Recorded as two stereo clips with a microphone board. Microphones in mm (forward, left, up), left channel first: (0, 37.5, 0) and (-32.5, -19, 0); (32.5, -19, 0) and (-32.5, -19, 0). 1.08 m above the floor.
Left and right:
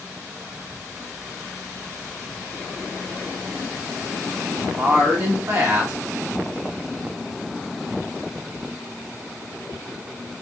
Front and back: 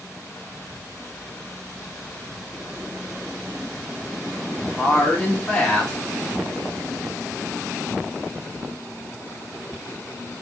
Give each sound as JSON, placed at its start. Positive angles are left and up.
{"t": 4.8, "sound": "a woman speaking", "azimuth_deg": -80, "distance_m": 1.2}